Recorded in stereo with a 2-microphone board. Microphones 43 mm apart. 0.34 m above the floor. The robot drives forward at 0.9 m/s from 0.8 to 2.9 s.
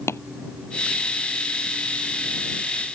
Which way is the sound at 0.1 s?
85° left.